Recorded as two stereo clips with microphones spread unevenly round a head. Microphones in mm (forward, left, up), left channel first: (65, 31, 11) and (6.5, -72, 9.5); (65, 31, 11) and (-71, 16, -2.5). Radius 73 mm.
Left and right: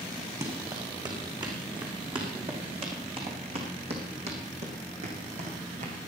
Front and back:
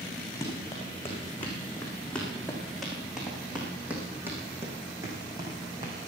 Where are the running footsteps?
65° right, 5 m; by 5.9 s 110° right, 4 m.